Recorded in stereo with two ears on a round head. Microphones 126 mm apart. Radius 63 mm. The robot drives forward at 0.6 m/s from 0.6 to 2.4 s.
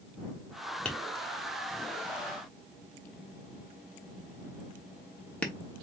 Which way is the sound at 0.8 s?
10° left (ahead or behind).